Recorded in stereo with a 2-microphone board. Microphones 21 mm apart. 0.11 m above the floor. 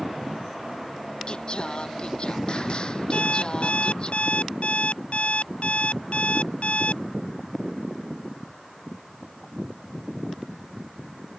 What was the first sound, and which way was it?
Singing, 45° left (ahead or behind).